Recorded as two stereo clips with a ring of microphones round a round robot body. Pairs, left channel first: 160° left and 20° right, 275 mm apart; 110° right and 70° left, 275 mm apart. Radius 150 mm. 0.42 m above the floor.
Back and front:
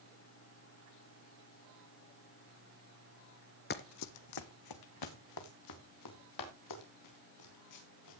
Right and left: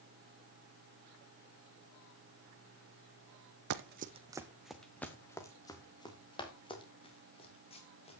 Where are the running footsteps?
105° left, 0.8 m; by 8.2 s straight behind, 6 m.